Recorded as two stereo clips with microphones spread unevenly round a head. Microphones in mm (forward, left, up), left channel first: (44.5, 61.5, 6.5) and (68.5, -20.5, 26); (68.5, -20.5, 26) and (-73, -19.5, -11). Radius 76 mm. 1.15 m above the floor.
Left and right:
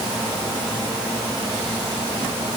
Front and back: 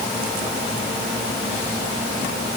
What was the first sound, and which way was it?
Only background noise.